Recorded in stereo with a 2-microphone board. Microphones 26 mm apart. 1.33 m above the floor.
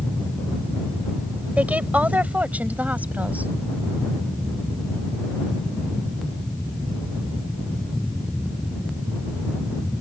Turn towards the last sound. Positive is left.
turn(degrees=-85)